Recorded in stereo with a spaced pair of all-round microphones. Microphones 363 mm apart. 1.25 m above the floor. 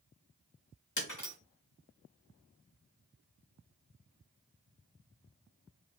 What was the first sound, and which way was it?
Breaking glass, 55° left (ahead or behind).